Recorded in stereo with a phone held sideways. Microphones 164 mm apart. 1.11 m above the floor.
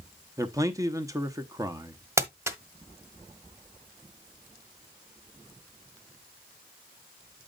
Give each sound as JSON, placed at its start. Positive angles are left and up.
{"t": 0.4, "sound": "a man speaking", "side_deg": -20, "distance_m": 0.8}
{"t": 2.2, "sound": "crumpling", "side_deg": -15, "distance_m": 1.0}